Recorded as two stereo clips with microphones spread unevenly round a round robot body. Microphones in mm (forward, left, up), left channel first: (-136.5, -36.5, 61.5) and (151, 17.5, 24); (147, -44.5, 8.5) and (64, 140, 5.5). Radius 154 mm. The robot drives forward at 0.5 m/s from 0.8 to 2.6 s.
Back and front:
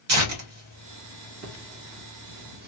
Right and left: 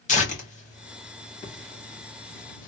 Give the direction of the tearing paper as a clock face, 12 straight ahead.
12 o'clock.